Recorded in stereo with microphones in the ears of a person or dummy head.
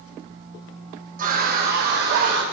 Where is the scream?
45° right (ahead or behind), 1.4 m; by 2.4 s 60° right (ahead or behind), 2.5 m.